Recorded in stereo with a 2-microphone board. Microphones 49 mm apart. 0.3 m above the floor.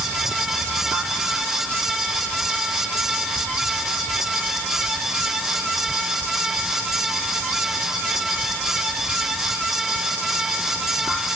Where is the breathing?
I don't hear breathing.